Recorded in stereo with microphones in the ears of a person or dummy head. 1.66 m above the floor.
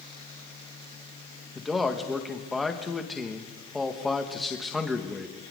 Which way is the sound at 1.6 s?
5° right (ahead or behind).